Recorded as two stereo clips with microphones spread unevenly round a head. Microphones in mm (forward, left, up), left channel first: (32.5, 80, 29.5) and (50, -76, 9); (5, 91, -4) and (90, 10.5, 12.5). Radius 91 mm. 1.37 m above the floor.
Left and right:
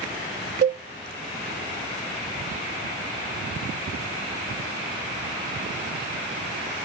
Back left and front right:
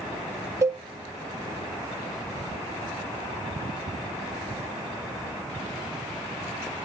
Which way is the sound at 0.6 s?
90° right.